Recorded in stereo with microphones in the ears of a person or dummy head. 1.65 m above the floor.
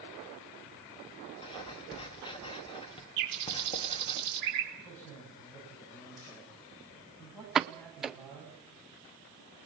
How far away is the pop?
About 0.6 m.